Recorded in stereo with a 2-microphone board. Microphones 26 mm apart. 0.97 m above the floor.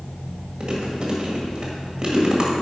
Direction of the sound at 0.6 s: 30° right (ahead or behind).